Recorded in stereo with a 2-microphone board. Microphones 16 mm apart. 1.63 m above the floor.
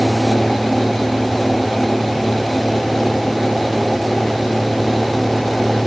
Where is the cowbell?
No cowbell in this recording.